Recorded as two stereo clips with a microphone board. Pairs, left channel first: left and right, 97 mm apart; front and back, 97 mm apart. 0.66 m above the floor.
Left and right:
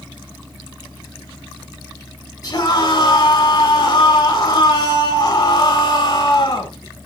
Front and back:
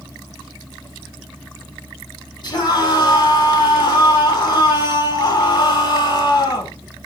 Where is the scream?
40° left, 6 m.